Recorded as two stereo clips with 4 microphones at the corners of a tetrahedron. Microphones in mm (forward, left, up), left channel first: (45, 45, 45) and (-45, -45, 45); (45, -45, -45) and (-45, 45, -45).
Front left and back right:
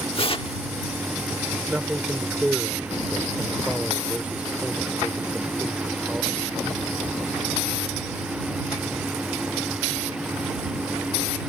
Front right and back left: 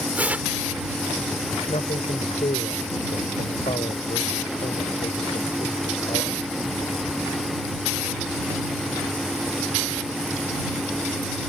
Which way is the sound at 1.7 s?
55° right.